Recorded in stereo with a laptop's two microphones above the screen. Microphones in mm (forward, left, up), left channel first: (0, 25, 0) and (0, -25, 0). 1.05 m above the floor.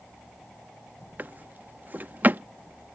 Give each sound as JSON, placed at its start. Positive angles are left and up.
{"t": 1.2, "sound": "a drawer", "side_deg": -40}